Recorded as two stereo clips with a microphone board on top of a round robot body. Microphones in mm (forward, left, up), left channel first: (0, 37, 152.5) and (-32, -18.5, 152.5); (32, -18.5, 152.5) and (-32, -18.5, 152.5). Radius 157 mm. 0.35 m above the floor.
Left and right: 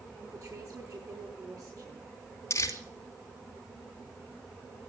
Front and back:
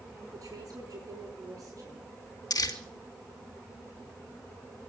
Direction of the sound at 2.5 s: 15° left.